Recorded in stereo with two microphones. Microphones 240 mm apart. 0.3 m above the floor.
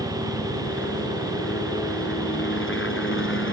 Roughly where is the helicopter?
Left.